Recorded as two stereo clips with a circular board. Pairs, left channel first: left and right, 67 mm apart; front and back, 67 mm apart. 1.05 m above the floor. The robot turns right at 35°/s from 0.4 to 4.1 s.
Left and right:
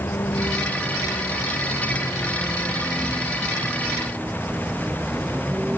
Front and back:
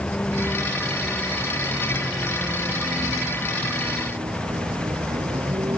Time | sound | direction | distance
0.0 | a vehicle | 65° left | ?